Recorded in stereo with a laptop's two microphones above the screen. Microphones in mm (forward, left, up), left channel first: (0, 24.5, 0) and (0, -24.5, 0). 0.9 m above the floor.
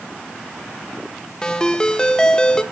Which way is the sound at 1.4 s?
20° left (ahead or behind).